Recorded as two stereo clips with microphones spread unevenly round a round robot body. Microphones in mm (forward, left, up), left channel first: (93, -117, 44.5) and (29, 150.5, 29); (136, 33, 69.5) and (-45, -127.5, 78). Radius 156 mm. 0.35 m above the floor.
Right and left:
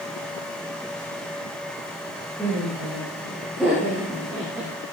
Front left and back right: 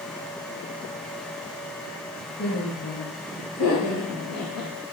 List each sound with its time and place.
2.4 s laughter: 10° left, 9.5 m; by 4.7 s 20° left, 7.5 m